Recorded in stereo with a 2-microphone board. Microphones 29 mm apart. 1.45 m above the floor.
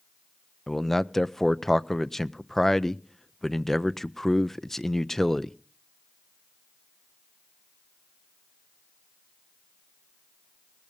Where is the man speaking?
10° left (ahead or behind), 0.6 m.